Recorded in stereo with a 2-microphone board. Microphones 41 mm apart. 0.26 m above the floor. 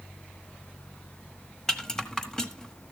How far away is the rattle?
About 0.9 m.